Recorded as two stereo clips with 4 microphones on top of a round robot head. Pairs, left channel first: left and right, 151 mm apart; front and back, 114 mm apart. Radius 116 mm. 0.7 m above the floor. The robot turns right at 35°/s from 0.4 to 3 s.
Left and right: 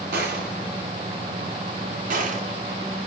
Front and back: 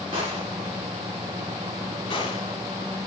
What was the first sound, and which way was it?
A gunshot, 120° right.